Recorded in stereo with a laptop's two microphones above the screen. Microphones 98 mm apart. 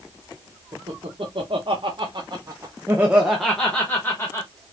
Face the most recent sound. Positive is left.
turn(degrees=25)  # may be behind; listen again after turning